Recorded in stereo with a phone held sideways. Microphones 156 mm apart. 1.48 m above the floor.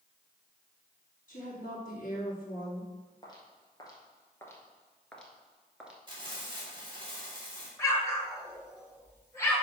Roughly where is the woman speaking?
Left.